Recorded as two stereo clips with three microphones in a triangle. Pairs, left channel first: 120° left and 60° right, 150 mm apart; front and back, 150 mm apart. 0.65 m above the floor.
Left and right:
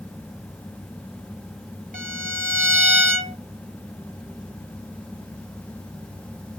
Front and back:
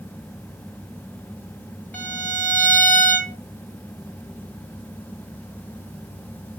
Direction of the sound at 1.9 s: 80° right.